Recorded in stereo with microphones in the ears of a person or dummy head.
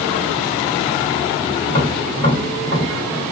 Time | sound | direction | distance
1.7 | tapping | 20° left (ahead or behind) | 2.0 m